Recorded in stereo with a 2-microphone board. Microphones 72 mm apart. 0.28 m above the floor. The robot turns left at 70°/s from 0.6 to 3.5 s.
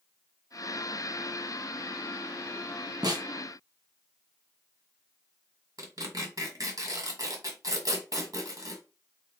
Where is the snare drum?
65° right (ahead or behind), 1.2 m.